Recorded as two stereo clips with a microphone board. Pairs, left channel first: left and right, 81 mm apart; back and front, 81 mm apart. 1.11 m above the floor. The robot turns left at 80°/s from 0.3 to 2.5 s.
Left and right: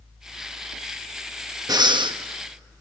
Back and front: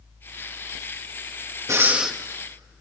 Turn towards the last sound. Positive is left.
turn(degrees=-115)